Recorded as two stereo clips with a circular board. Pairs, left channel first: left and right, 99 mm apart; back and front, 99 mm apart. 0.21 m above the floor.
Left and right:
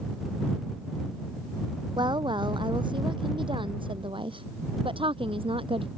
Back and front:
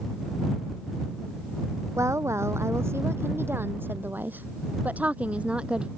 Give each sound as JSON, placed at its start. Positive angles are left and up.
{"t": 2.0, "sound": "a woman speaking", "azimuth_deg": -55}